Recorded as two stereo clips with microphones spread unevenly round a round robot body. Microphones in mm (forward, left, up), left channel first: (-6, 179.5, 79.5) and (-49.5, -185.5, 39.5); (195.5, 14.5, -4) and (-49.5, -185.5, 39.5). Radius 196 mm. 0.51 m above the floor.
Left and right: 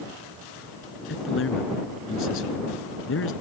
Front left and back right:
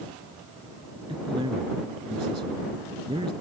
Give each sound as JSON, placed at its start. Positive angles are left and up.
{"t": 1.1, "sound": "a man speaking", "azimuth_deg": 140}